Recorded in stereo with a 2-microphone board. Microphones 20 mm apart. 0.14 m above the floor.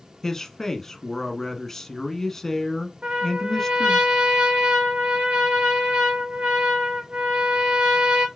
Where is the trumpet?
60° right (ahead or behind), 2.5 m.